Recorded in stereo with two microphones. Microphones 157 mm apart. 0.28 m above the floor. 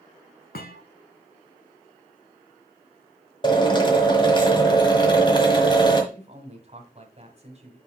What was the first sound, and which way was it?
A thud, 80° left.